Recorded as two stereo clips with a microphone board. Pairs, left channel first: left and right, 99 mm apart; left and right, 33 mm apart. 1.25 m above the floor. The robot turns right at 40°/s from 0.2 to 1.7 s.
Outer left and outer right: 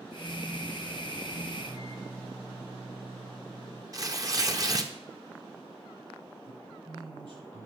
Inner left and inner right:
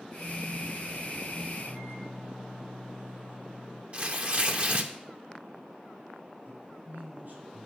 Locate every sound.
1.6 s a microwave: 45° right (ahead or behind), 6 m; by 3.8 s 55° right (ahead or behind), 6 m
3.9 s tearing paper: 40° right (ahead or behind), 1.1 m
6.5 s a man speaking: 65° right (ahead or behind), 7 m